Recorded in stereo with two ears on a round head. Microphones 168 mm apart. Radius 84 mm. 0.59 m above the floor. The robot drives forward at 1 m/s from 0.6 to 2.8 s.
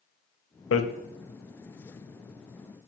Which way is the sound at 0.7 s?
80° left.